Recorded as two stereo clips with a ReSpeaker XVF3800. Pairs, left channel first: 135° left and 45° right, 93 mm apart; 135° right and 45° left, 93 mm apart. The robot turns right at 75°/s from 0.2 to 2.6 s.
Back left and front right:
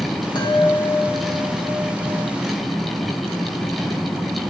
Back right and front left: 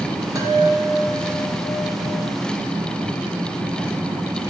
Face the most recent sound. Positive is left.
turn(degrees=-95)